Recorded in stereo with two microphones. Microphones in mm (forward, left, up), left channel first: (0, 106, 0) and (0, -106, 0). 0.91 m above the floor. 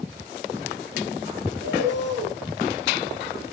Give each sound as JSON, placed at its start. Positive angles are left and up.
{"t": 1.6, "sound": "a bird", "side_deg": -60, "distance_m": 4.5}